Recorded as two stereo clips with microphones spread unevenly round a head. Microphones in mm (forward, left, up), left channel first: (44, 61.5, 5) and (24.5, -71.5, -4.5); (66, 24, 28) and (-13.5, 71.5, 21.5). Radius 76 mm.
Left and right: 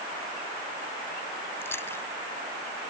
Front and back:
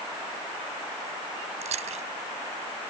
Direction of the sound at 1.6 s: 160° left.